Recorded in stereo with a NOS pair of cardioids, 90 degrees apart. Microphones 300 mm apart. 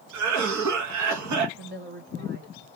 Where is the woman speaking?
40° right, 1.9 m.